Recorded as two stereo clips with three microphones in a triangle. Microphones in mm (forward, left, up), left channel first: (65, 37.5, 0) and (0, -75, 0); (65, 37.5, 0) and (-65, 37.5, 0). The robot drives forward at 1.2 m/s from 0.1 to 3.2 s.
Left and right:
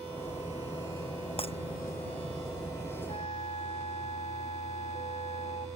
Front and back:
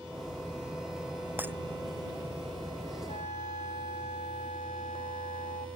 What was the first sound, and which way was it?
Breaking glass, 105° left.